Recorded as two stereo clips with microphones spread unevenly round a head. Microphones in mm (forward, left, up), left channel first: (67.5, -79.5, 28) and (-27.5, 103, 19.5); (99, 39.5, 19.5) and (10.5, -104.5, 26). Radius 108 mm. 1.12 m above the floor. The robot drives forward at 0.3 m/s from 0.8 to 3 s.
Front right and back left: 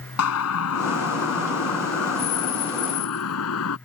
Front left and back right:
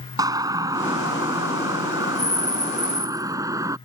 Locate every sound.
0.2 s a siren: 55° right; by 3.8 s 50° right